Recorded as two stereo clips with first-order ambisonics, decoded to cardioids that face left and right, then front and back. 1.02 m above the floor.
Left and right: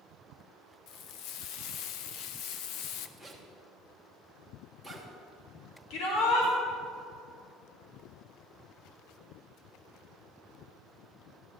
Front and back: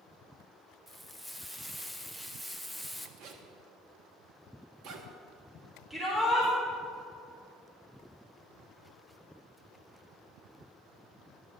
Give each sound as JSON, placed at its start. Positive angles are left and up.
{"t": 0.9, "sound": "frying", "azimuth_deg": 95, "distance_m": 0.6}
{"t": 3.2, "sound": "a zipper", "azimuth_deg": 170, "distance_m": 1.2}
{"t": 5.9, "sound": "a shout", "azimuth_deg": 90, "distance_m": 1.9}